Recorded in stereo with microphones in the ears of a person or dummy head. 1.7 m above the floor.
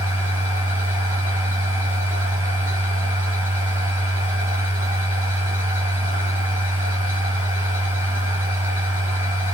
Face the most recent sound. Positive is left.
turn(degrees=-10)  # may be behind; listen again after turning